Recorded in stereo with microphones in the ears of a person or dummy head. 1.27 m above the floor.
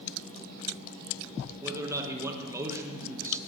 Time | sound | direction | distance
1.6 | a man speaking | 15° right (ahead or behind) | 1.5 m